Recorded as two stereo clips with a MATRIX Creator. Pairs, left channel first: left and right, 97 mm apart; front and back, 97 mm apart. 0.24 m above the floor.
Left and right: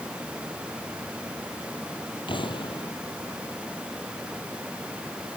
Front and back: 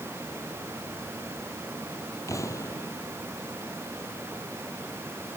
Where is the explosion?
55° left.